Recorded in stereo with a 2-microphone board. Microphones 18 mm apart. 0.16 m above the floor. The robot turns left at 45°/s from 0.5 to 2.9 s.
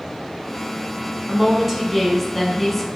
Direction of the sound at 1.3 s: 20° right (ahead or behind).